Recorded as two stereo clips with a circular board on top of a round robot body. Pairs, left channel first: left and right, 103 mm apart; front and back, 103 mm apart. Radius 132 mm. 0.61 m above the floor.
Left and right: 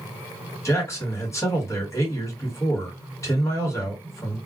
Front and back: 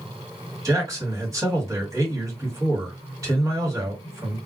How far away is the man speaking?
About 1.7 m.